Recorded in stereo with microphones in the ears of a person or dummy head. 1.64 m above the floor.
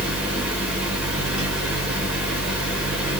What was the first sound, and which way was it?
A fan, centre (ahead or behind).